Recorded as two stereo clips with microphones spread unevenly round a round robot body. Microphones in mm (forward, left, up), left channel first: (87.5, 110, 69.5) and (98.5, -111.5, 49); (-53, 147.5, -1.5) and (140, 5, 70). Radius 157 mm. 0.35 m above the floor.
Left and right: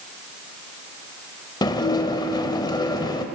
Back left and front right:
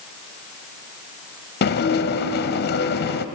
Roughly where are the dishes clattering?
Behind.